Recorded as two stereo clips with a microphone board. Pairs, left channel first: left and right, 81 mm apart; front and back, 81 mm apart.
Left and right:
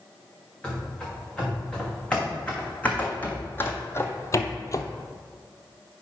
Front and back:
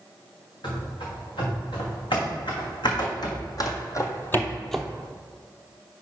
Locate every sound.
0.6 s running footsteps: 10° left, 3 m; by 4.8 s 95° left, 0.6 m